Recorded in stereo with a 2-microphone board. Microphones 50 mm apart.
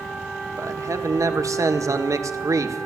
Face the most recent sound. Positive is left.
turn(degrees=-75)  # may be behind; listen again after turning